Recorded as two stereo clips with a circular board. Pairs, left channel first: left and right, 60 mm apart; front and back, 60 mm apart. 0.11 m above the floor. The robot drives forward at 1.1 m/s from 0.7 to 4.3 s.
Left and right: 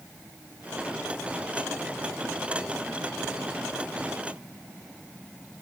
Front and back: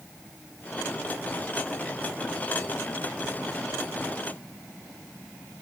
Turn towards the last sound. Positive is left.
No sound to turn to.